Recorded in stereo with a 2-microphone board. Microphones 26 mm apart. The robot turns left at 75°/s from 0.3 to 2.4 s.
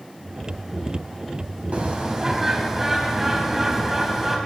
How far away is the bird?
About 4 m.